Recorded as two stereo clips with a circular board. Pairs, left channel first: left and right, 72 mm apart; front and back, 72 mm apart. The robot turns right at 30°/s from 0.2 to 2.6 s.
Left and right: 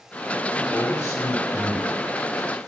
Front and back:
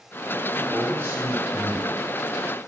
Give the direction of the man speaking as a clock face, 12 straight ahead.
8 o'clock.